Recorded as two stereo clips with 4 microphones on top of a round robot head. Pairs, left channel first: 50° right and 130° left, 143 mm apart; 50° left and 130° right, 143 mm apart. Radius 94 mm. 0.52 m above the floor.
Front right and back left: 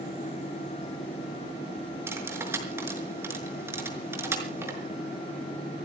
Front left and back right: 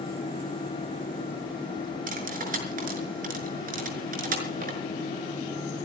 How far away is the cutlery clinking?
About 5.5 m.